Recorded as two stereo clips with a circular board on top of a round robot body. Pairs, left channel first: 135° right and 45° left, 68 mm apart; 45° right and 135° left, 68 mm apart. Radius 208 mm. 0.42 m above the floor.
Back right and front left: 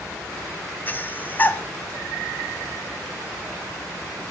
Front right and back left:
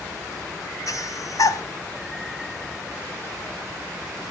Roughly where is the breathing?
Right.